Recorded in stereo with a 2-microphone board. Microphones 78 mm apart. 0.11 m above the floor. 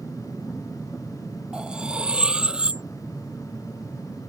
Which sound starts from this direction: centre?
Cutlery clinking, at 1.5 s.